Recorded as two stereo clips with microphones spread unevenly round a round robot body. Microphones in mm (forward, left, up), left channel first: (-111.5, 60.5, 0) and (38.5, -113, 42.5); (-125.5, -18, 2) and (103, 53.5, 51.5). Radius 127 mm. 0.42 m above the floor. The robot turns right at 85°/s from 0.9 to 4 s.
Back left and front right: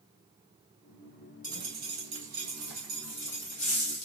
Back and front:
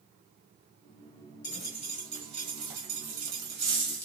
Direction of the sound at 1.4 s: 105° right.